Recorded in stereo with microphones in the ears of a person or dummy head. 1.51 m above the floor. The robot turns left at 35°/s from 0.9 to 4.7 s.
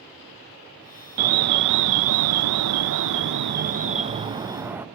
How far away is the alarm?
About 0.6 m.